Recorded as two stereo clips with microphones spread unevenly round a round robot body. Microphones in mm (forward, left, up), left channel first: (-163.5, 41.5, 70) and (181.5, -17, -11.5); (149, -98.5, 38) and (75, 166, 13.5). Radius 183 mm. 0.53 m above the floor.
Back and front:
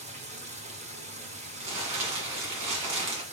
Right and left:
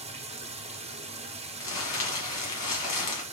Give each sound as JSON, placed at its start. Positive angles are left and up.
{"t": 0.0, "sound": "running water", "azimuth_deg": 45, "distance_m": 0.9}
{"t": 1.6, "sound": "crumpling", "azimuth_deg": -50, "distance_m": 1.7}